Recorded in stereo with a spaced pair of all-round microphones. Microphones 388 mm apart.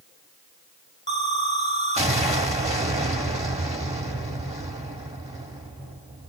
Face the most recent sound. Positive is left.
turn(degrees=-15)  # may be behind; listen again after turning